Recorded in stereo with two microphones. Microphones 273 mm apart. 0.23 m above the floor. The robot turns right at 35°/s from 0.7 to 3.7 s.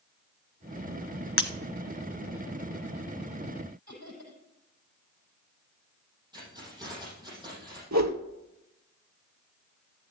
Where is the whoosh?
85° right, 1.1 m.